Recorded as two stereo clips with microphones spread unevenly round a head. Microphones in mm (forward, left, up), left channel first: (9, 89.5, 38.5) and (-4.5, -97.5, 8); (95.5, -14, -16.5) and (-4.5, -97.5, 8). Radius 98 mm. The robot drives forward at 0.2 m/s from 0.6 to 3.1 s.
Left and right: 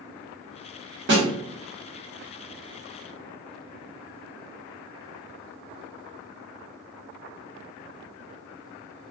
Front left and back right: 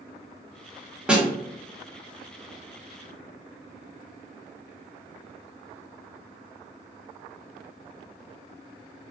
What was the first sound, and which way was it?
A snare drum, 65° right.